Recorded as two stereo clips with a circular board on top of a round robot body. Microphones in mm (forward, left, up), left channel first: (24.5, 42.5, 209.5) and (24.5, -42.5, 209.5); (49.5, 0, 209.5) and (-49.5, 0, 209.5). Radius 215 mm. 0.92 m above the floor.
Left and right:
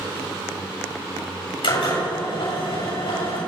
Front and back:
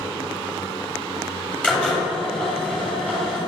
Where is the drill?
80° left, 8 m.